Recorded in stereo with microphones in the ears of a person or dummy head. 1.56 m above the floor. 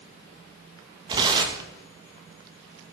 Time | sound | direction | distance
1.1 | tearing paper | 25° right (ahead or behind) | 1.9 m